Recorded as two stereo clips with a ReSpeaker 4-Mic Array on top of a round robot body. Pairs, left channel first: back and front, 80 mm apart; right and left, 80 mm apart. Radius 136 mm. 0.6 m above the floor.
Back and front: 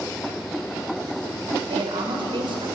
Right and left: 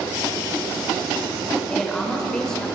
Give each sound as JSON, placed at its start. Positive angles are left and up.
{"t": 1.7, "sound": "a woman speaking", "azimuth_deg": -5, "distance_m": 3.5}